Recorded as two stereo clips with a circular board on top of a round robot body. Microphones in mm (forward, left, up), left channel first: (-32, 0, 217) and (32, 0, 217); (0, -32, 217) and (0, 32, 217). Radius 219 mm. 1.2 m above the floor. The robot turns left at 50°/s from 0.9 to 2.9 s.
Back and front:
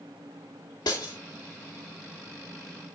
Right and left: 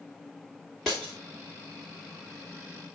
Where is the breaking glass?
175° right, 0.5 m; by 1.1 s 170° left, 0.5 m.